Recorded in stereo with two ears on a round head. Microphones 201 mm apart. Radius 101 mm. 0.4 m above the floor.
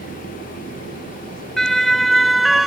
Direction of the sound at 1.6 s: Centre (ahead or behind).